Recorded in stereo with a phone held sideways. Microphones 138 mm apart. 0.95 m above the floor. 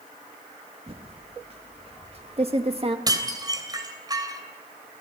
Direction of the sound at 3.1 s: 25° right (ahead or behind).